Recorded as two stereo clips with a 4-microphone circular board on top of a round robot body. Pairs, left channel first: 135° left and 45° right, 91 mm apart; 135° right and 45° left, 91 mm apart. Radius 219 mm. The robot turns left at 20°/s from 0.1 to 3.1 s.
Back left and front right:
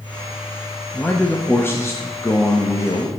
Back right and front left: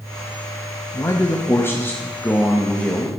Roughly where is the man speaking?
Behind.